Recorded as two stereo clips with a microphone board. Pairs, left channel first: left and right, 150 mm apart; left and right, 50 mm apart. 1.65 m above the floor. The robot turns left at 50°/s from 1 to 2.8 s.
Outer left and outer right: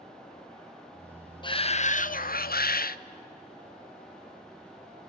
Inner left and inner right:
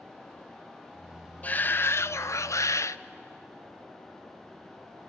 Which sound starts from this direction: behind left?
A shout, at 1.4 s.